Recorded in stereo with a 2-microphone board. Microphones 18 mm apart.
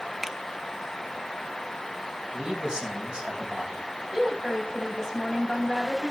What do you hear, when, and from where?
0.2 s a finger snap: 20° right (ahead or behind), 0.9 m
2.3 s a man speaking: 70° right (ahead or behind), 3.5 m
4.1 s a woman speaking: 30° right (ahead or behind), 3.5 m